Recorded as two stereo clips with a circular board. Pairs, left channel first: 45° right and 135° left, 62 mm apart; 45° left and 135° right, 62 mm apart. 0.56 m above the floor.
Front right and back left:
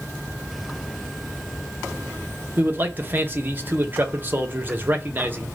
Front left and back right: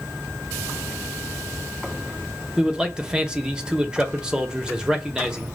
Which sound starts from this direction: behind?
A man speaking, at 2.6 s.